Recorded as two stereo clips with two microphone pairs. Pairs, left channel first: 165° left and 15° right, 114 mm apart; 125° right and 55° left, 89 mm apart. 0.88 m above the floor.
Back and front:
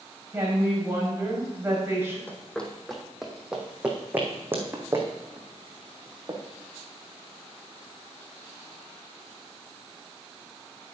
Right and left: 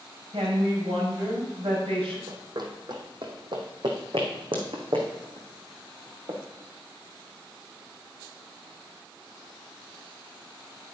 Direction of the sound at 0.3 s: 50° left.